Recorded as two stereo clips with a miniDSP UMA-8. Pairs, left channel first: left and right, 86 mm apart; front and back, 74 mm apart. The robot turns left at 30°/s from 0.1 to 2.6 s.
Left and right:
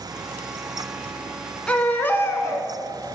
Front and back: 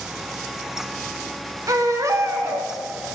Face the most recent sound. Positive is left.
turn(degrees=135)